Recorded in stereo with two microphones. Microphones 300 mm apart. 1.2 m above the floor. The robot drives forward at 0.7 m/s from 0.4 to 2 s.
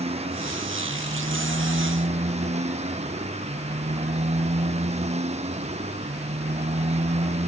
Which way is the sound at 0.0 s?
20° right (ahead or behind).